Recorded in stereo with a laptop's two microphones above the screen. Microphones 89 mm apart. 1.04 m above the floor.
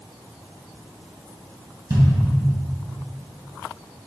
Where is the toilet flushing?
I don't hear a toilet flushing.